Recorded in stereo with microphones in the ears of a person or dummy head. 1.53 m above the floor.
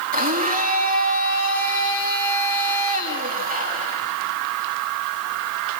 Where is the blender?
45° right (ahead or behind), 3 m.